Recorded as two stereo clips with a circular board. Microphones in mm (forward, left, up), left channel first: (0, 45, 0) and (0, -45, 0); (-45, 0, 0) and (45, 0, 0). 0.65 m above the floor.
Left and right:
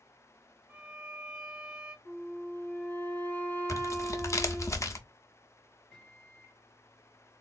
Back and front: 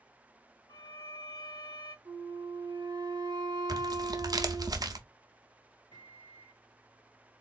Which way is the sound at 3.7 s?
40° left.